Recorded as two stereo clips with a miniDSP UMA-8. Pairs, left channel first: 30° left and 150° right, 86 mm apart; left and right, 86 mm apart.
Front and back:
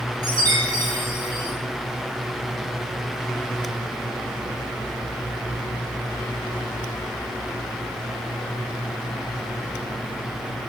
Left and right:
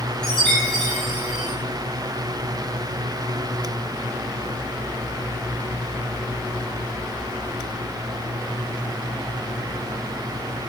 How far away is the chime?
About 6.5 m.